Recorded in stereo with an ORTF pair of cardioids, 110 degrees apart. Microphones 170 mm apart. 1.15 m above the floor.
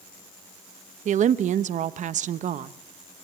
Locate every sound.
1.1 s a woman speaking: 45° right, 0.9 m